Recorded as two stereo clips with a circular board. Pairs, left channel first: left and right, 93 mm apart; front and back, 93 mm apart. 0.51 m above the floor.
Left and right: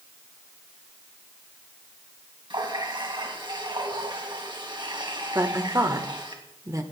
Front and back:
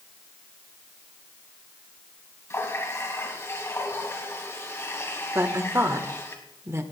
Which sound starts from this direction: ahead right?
A running tap, at 2.5 s.